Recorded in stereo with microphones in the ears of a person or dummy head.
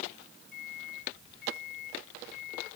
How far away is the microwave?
About 5 m.